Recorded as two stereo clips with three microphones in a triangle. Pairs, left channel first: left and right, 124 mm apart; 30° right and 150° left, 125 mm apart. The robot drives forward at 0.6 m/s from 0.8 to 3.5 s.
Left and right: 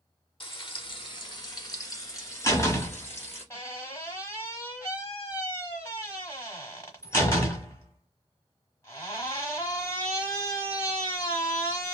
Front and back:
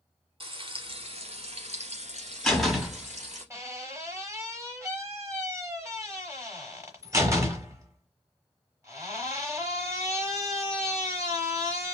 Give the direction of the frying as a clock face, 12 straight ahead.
8 o'clock.